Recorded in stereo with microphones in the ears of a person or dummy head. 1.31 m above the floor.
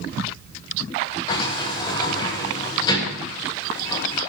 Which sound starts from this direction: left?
A sliding door, at 1.3 s.